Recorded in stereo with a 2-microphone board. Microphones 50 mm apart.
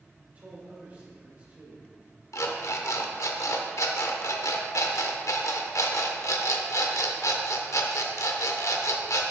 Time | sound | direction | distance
0.3 | a man speaking | 30° right (ahead or behind) | 2.5 m
2.3 | an alarm clock | 75° left (ahead or behind) | 0.8 m